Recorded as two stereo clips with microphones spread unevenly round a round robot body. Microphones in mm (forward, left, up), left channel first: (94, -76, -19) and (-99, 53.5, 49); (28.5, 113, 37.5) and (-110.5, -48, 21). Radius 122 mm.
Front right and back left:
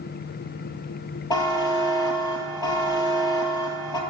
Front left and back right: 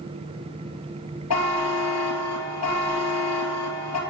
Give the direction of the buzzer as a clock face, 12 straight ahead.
10 o'clock.